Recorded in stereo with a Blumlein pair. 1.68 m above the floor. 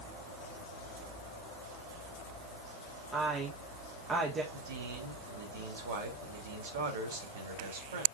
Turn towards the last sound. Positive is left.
turn(degrees=-60)